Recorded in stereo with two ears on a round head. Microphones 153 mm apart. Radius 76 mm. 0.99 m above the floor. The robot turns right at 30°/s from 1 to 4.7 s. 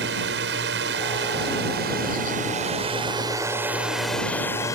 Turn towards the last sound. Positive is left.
turn(degrees=20)